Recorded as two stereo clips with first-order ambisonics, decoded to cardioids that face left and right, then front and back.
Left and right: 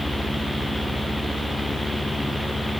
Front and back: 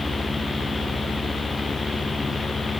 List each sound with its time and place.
Only background noise.